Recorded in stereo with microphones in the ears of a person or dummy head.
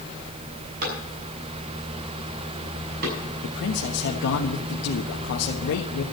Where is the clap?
50° right (ahead or behind), 6.5 m.